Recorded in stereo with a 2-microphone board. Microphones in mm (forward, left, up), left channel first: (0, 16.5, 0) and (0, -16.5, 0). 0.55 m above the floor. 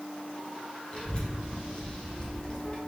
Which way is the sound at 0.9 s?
35° left (ahead or behind).